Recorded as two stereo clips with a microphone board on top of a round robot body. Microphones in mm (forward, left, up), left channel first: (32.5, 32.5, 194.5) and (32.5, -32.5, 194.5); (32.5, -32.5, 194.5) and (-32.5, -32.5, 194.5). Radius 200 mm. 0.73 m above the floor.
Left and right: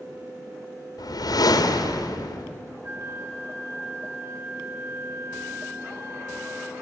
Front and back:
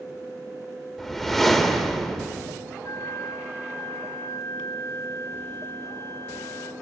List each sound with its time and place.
1.0 s a whoosh: 90° left, 2 m
2.8 s a flute: 40° right, 3.5 m